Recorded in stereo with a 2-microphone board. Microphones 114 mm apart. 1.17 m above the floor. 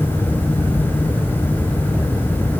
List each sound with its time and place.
Only background noise.